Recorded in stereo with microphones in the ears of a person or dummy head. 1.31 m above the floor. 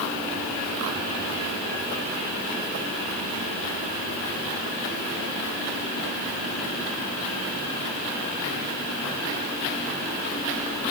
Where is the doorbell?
I don't hear a doorbell.